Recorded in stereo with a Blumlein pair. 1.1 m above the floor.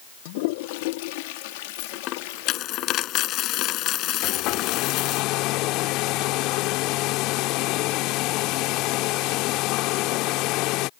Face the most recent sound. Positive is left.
turn(degrees=40)